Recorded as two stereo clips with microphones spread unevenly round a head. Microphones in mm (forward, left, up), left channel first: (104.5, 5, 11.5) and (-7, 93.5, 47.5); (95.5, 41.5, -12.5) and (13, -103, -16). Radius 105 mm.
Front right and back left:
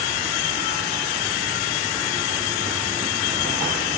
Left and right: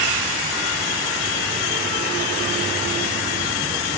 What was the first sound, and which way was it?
Only background noise.